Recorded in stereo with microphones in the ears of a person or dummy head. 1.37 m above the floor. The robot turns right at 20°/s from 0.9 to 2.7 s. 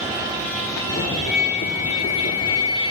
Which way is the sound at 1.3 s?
40° left (ahead or behind).